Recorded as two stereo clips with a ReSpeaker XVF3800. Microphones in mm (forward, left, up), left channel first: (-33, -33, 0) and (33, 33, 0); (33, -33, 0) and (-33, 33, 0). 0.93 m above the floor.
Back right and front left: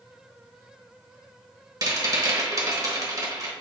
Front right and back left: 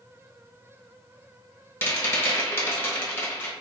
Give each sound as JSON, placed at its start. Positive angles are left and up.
{"t": 1.8, "sound": "a rattle", "azimuth_deg": 10, "distance_m": 1.1}